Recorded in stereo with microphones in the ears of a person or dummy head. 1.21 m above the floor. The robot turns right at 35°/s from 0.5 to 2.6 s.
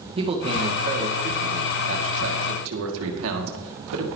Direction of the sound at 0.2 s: 160° right.